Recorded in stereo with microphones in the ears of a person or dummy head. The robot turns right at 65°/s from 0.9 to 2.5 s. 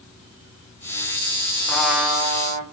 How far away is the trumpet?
About 1.4 m.